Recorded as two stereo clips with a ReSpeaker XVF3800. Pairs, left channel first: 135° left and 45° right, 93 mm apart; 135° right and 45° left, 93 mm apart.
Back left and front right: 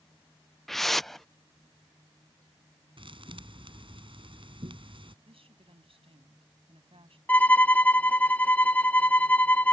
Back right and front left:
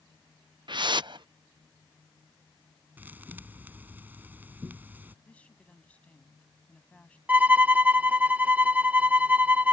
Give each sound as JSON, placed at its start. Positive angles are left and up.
{"t": 0.7, "sound": "a whoosh", "azimuth_deg": 50}
{"t": 3.0, "sound": "a thud", "azimuth_deg": -25}
{"t": 5.2, "sound": "a woman speaking", "azimuth_deg": -60}
{"t": 7.3, "sound": "a violin", "azimuth_deg": 90}